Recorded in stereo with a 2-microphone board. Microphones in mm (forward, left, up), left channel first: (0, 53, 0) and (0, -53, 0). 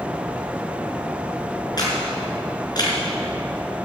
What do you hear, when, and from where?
1.8 s a camera shutter: 40° left (ahead or behind), 5 m